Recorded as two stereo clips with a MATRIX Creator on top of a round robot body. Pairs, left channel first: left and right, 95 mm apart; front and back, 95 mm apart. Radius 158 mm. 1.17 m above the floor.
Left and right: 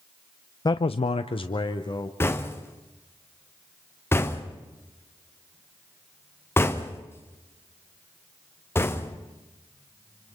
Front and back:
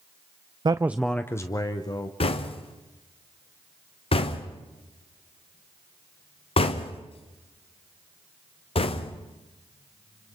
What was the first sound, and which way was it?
A man speaking, 140° left.